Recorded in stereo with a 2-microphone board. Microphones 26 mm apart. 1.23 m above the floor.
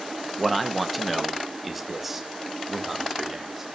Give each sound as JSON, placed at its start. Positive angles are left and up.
{"t": 0.4, "sound": "a man speaking", "side_deg": 0, "distance_m": 1.3}